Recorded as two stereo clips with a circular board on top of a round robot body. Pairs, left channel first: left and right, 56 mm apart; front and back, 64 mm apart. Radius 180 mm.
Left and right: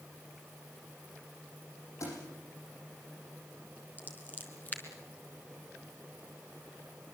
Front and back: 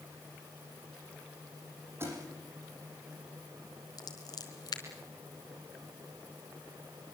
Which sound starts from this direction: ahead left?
Scissors, at 4.0 s.